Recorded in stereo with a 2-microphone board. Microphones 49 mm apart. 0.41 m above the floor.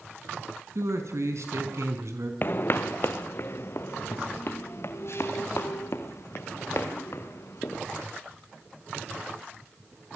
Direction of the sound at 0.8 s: 75° right (ahead or behind).